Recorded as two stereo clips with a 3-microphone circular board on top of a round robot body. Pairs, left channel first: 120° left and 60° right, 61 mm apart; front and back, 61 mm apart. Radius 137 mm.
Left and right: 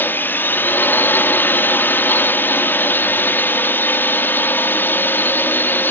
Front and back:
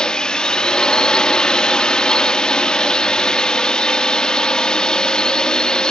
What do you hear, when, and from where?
0.0 s a drone: 75° left